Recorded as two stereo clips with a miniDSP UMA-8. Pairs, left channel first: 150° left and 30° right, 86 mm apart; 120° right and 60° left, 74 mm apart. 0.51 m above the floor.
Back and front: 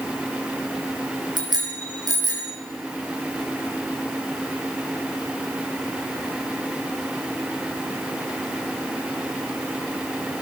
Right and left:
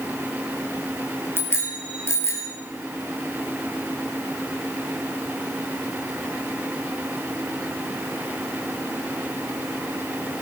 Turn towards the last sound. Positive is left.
turn(degrees=-70)